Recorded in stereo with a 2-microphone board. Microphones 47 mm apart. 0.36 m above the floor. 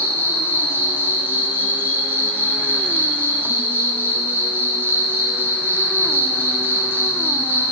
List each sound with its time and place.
0.0 s an insect: 50° right (ahead or behind), 0.9 m